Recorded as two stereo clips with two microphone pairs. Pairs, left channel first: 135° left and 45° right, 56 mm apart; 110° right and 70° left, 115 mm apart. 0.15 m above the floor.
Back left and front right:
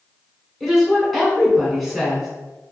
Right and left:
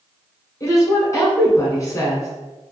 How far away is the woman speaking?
About 1.3 m.